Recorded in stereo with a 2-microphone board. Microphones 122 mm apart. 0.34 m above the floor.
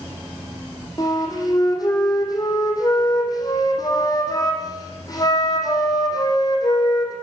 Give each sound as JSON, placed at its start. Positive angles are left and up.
{"t": 1.0, "sound": "a flute", "side_deg": 35, "distance_m": 4.0}